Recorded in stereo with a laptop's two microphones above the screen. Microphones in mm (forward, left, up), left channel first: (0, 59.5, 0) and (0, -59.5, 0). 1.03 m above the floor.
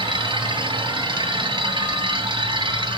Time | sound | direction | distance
0.0 | a machine running | 40° right (ahead or behind) | 2.5 m